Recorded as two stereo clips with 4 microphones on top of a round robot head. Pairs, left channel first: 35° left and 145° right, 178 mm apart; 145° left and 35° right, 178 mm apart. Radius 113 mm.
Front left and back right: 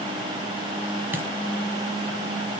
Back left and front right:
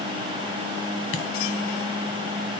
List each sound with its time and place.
1.1 s a dropped coin: 140° left, 1.3 m